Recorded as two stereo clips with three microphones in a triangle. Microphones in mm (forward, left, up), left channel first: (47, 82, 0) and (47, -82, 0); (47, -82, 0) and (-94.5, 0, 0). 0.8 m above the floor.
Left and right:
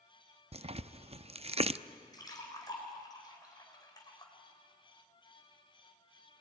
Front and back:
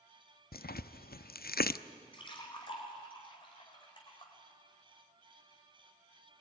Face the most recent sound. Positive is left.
turn(degrees=25)